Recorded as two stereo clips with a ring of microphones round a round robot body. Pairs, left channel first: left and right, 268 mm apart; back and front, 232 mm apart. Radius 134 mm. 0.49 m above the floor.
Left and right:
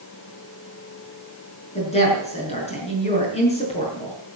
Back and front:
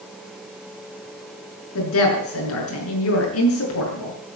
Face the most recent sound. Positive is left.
turn(degrees=160)